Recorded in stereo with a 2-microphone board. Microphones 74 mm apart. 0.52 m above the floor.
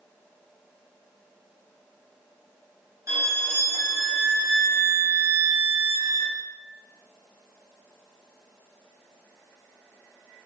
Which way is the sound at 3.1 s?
40° right (ahead or behind).